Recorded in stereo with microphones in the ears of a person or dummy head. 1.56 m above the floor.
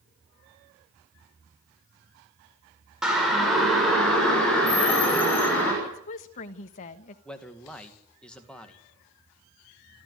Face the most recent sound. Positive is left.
turn(degrees=10)  # may be behind; listen again after turning